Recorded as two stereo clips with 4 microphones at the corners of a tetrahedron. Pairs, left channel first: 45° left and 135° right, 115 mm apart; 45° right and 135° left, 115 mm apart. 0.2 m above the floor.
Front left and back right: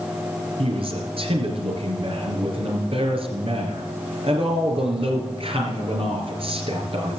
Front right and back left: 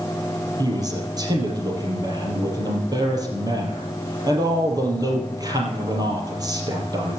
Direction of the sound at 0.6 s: 170° right.